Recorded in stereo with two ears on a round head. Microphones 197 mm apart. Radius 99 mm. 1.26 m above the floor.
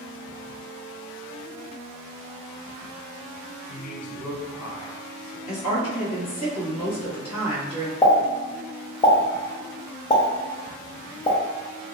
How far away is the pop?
About 0.6 m.